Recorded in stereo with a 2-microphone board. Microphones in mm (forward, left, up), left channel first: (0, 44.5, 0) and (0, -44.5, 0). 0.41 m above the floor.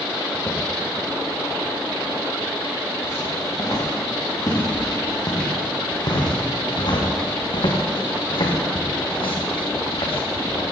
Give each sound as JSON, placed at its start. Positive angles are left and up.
{"t": 0.3, "sound": "footsteps", "side_deg": 20, "distance_m": 5.5}